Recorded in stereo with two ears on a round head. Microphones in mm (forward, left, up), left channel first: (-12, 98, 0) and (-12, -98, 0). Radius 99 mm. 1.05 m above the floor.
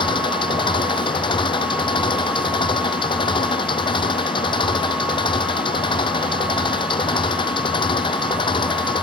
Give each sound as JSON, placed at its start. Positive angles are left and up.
{"t": 0.0, "sound": "an engine running", "side_deg": 20}